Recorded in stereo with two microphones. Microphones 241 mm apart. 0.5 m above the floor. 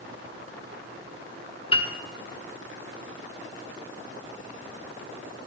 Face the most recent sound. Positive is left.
turn(degrees=25)  # may be behind; listen again after turning